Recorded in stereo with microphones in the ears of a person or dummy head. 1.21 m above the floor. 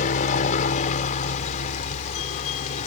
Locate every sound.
0.0 s a helicopter: 40° left (ahead or behind)